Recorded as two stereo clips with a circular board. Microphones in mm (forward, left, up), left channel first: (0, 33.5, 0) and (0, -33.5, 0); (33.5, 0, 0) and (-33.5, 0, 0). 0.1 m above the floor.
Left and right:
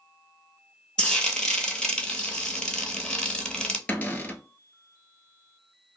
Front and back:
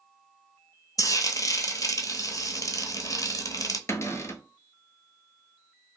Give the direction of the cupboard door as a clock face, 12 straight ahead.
11 o'clock.